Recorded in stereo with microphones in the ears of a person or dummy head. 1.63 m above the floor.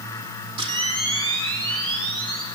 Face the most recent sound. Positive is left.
turn(degrees=-20)  # may be behind; listen again after turning